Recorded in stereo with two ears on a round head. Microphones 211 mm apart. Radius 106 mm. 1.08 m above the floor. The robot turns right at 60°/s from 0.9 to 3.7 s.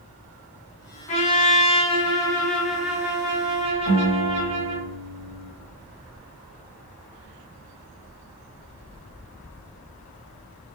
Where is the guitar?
55° left (ahead or behind), 1.4 m.